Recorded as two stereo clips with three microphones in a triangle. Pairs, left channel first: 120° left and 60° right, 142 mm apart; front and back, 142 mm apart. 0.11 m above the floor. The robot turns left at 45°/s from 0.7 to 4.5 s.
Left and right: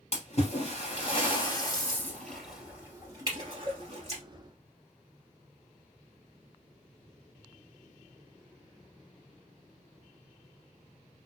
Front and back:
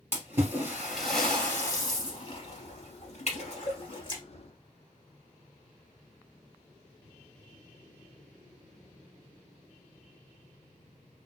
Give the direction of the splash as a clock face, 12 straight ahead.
8 o'clock.